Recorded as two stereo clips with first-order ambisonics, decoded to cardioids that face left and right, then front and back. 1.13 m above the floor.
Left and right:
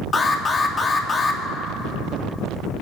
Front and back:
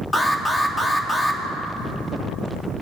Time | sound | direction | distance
0.1 | an alarm | 65° left | 0.8 m